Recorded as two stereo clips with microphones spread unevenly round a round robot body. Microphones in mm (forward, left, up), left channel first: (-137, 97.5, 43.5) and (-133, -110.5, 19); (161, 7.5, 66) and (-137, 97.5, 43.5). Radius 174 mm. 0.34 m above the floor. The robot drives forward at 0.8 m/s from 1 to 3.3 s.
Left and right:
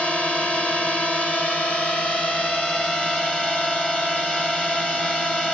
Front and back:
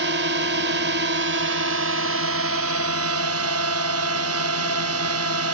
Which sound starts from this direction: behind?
A drone, at 0.0 s.